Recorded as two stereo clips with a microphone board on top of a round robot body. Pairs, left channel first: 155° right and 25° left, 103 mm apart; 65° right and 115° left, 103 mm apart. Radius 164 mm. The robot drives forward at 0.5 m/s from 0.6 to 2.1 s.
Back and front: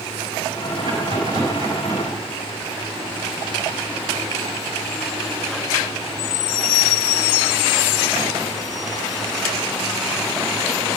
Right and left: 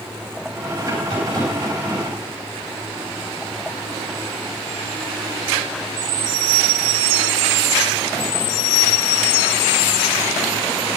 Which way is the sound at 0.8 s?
65° left.